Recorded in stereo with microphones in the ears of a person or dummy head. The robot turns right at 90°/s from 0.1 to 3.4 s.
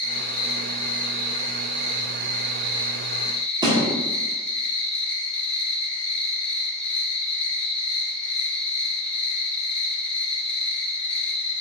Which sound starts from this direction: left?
An insect, at 0.0 s.